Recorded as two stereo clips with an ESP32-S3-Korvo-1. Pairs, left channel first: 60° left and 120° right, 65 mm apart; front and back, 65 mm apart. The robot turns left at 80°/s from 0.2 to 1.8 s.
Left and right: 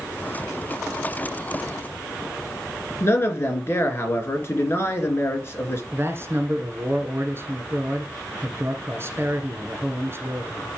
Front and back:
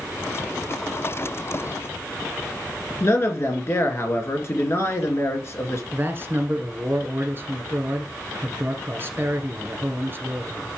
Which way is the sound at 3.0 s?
25° left.